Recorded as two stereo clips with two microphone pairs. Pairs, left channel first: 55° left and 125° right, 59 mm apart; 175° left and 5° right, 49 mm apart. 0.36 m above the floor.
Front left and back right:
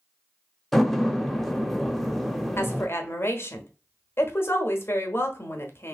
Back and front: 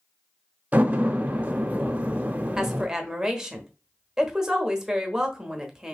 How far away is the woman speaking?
About 1.2 m.